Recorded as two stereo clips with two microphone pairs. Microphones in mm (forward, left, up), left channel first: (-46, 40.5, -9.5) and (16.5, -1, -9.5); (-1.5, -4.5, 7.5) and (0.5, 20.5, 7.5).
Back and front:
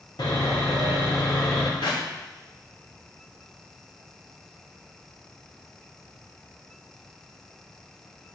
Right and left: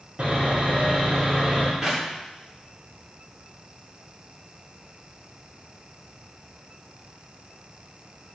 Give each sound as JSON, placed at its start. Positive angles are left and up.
{"t": 0.2, "sound": "sawing", "azimuth_deg": 120, "distance_m": 4.5}
{"t": 1.8, "sound": "a clap", "azimuth_deg": 150, "distance_m": 5.0}